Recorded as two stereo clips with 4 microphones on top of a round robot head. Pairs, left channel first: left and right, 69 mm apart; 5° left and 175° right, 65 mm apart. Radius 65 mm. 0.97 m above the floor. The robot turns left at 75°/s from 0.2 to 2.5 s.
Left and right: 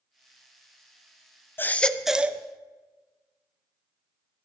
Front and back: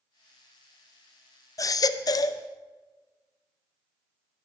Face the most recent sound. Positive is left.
turn(degrees=-35)